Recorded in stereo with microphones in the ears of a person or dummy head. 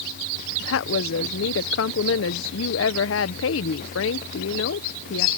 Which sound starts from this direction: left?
A woman speaking, at 0.6 s.